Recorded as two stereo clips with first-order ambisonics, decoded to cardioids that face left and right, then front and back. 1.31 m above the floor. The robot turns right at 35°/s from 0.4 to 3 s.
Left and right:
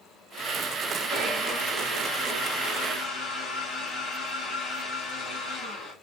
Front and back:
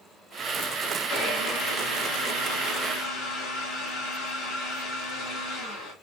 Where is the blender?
45° right, 2.5 m; by 5.9 s 20° left, 2.5 m.